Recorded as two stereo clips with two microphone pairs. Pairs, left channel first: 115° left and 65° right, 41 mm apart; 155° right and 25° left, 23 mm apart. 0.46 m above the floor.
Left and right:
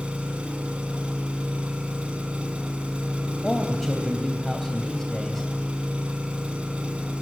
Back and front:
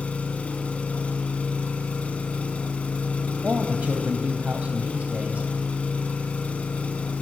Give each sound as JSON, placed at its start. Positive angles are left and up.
{"t": 0.0, "sound": "an engine running", "azimuth_deg": -135, "distance_m": 3.5}
{"t": 3.4, "sound": "a man speaking", "azimuth_deg": 30, "distance_m": 3.0}